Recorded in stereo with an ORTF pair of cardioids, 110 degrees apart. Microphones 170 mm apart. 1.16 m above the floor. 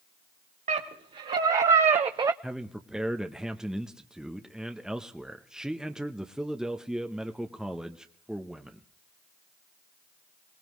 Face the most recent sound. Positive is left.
turn(degrees=-5)